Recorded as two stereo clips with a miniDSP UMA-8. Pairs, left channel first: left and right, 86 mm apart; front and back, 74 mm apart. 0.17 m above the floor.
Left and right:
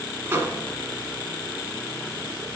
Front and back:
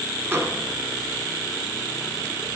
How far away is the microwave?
About 1.4 m.